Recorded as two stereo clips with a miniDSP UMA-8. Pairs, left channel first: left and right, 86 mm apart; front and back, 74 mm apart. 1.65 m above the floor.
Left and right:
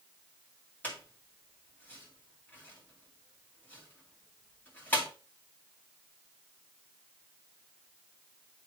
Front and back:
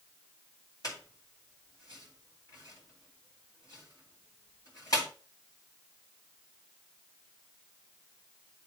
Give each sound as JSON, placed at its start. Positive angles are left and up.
{"t": 0.8, "sound": "a squeak", "azimuth_deg": 20, "distance_m": 2.5}